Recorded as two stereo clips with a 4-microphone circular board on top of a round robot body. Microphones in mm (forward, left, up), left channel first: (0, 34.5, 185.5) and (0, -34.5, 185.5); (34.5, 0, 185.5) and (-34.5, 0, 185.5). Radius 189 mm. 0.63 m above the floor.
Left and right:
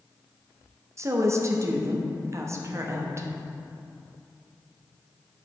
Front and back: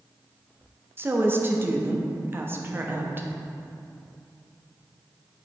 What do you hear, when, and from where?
1.0 s a woman speaking: 125° right, 1.1 m